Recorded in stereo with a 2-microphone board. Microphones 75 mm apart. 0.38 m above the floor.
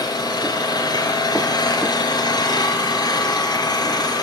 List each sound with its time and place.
0.0 s an engine running: 70° left (ahead or behind), 3.5 m